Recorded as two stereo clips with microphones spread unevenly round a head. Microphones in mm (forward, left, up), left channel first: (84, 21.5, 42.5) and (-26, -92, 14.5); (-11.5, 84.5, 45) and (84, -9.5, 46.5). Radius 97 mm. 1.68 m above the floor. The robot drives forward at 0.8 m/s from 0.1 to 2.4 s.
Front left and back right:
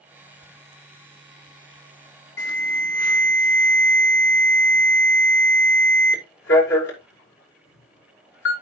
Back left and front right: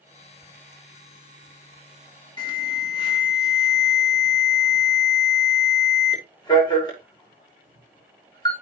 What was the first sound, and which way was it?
An alarm, 80° left.